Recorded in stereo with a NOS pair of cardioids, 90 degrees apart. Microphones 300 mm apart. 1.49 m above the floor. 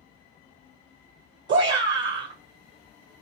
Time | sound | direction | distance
1.5 | a shout | 40° right | 0.6 m